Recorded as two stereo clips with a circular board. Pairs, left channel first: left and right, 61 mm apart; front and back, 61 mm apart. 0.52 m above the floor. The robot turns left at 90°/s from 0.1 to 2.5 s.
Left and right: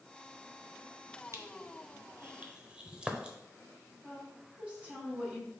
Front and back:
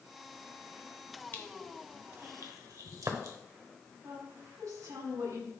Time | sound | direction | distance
1.3 | crushing | 55° right | 0.9 m
4.0 | a woman speaking | 160° right | 3.5 m